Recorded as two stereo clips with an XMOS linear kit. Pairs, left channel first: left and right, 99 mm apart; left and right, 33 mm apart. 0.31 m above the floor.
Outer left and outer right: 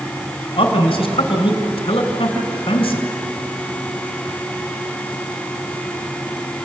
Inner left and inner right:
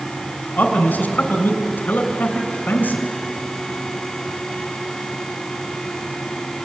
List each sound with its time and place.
0.6 s a man speaking: 65° left (ahead or behind), 3 m